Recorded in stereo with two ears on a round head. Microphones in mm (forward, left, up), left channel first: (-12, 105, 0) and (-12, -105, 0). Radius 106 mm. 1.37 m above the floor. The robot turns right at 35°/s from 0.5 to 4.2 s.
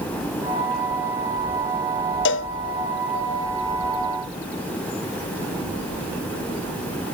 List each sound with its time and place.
2.2 s a cowbell: 50° left (ahead or behind), 0.8 m; by 2.5 s 60° left (ahead or behind), 0.8 m